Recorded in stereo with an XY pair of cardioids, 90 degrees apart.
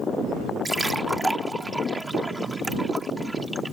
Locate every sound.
0.7 s a splash: 15° right